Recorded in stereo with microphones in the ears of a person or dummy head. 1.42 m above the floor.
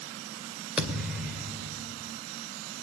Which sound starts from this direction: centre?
A thud, at 0.8 s.